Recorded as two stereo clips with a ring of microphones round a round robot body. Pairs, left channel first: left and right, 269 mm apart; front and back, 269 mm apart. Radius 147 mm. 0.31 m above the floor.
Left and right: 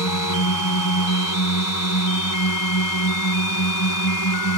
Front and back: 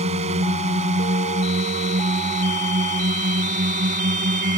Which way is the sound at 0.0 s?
115° left.